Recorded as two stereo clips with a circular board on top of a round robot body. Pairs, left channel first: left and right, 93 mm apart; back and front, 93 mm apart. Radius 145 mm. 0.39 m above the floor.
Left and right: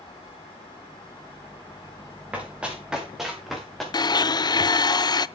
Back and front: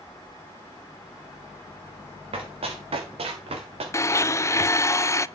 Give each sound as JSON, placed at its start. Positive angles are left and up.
{"t": 2.3, "sound": "running footsteps", "azimuth_deg": -15, "distance_m": 4.5}
{"t": 3.9, "sound": "a blender", "azimuth_deg": 125, "distance_m": 0.6}